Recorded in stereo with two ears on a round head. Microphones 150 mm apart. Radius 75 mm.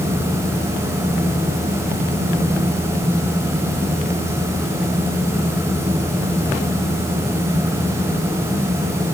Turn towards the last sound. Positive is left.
No sound to turn to.